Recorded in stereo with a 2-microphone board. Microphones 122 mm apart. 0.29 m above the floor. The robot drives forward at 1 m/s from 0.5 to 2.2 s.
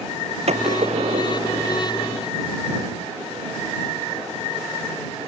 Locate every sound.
0.5 s a gunshot: 60° right (ahead or behind); by 1.8 s 55° right (ahead or behind)